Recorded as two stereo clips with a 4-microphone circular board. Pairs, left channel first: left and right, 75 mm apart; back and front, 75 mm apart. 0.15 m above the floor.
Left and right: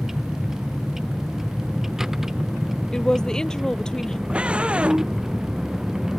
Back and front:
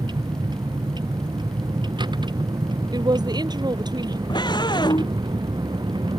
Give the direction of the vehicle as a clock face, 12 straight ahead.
12 o'clock.